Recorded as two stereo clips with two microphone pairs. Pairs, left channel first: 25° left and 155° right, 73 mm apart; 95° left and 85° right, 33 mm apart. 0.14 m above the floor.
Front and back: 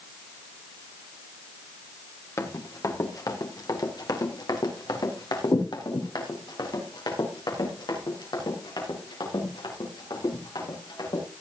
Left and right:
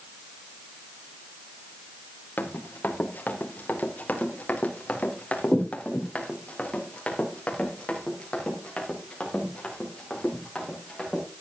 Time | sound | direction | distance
2.4 | running footsteps | 70° left | 2.5 m